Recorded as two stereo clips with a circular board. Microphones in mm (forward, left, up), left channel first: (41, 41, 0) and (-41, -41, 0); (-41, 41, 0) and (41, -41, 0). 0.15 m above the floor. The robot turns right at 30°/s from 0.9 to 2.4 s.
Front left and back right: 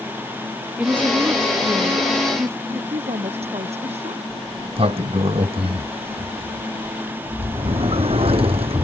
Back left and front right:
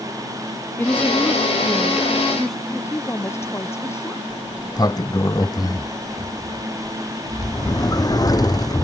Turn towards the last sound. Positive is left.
turn(degrees=-170)